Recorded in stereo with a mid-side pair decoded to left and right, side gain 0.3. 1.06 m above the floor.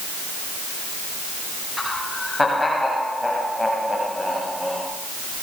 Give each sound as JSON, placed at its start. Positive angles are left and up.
{"t": 1.8, "sound": "laughter", "azimuth_deg": 25, "distance_m": 9.0}